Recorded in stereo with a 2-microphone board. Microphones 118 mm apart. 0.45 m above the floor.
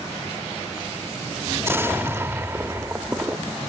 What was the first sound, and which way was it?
An explosion, 20° right (ahead or behind).